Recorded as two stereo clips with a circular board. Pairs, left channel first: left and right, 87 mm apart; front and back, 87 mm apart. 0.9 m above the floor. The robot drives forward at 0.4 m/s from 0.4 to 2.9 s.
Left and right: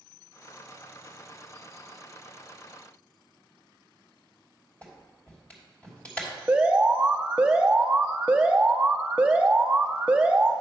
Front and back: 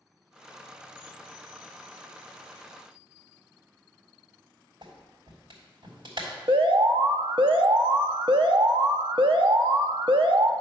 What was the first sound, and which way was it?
A clap, 160° left.